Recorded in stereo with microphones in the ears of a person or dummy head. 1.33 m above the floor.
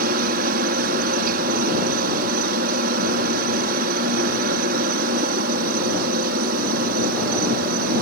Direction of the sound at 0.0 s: 55° right (ahead or behind).